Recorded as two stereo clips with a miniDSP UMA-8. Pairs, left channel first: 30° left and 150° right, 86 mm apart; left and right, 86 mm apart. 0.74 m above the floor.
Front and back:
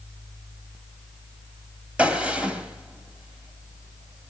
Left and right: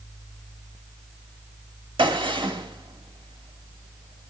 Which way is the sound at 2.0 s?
70° right.